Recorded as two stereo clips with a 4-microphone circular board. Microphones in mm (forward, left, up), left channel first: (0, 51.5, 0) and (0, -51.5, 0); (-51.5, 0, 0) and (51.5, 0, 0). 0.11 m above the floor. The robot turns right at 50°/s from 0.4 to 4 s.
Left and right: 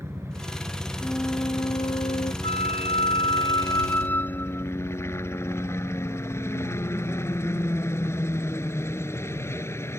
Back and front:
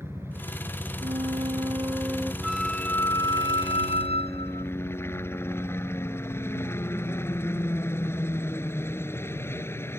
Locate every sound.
0.0 s a helicopter: 50° right; by 10.0 s 130° left
1.0 s a flute: 10° left; by 2.3 s 80° left
2.4 s a flute: 85° left; by 4.7 s 160° left